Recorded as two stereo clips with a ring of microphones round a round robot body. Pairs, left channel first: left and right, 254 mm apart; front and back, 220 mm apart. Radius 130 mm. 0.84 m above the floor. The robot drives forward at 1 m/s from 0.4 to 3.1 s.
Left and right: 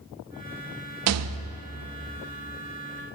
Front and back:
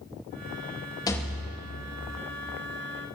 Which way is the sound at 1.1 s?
70° right.